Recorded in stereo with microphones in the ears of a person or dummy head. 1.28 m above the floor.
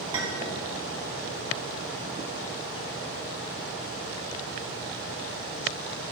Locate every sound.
0.1 s a clink: 25° right (ahead or behind), 1.6 m